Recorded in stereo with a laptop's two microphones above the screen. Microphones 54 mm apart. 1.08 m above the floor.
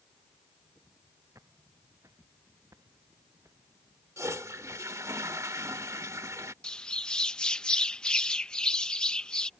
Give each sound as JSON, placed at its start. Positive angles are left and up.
{"t": 1.4, "sound": "footsteps", "side_deg": -85}
{"t": 4.2, "sound": "a toilet flushing", "side_deg": -75}
{"t": 6.6, "sound": "a bird", "side_deg": 15}